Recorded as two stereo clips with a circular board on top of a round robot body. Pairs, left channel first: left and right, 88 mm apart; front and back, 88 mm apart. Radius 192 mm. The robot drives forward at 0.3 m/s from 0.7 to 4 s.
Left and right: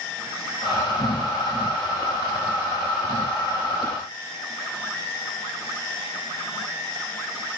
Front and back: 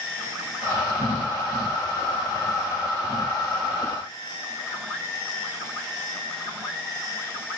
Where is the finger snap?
No finger snap in this recording.